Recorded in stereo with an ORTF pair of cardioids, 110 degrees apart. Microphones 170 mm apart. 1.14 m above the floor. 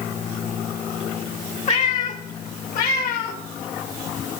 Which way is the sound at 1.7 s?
45° left.